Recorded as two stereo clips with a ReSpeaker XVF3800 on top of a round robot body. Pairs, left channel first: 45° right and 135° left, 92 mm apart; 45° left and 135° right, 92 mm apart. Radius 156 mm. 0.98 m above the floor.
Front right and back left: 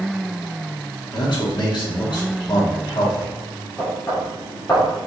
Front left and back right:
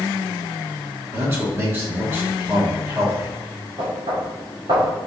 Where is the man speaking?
75° right, 3 m.